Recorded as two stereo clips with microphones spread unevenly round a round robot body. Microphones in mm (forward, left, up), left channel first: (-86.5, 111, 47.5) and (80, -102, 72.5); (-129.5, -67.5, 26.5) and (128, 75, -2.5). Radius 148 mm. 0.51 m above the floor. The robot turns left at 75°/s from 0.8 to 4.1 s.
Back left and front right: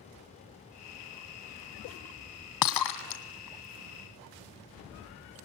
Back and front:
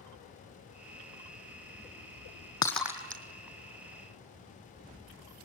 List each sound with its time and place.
2.6 s breaking glass: 135° left, 2.5 m; by 3.2 s 90° left, 2.5 m